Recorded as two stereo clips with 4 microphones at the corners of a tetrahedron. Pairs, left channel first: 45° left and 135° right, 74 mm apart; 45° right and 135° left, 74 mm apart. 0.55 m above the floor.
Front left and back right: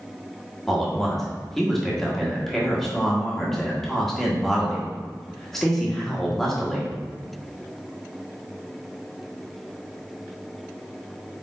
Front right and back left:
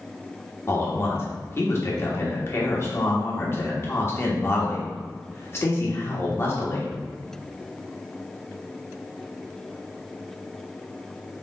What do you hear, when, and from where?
0.7 s a man speaking: 35° right, 1.2 m